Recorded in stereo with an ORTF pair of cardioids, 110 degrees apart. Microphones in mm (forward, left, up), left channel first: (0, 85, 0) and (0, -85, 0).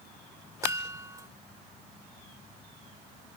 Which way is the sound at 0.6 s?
20° right.